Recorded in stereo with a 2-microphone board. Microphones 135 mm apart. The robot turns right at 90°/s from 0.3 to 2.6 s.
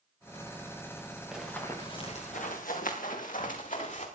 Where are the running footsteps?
5° right (ahead or behind), 4 m; by 4.0 s 65° left (ahead or behind), 5 m.